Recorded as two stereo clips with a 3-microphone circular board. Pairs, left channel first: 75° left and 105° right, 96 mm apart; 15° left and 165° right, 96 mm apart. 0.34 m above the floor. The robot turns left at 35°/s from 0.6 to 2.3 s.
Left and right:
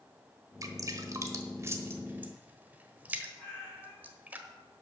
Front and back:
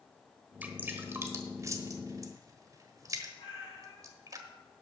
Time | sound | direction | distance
0.6 | dripping | 105° right | 1.1 m
3.4 | a cat meowing | 30° right | 5.5 m